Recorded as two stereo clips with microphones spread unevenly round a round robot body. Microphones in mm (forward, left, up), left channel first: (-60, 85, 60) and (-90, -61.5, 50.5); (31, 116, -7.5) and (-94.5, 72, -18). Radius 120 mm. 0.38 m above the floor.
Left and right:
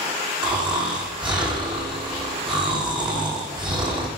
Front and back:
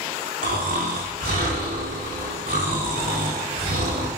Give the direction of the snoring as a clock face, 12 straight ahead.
5 o'clock.